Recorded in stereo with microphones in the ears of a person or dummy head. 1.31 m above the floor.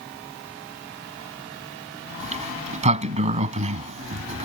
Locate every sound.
2.2 s a sliding door: 40° right (ahead or behind)